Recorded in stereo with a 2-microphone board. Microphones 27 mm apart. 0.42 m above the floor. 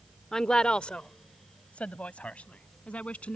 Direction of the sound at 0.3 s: 20° left (ahead or behind).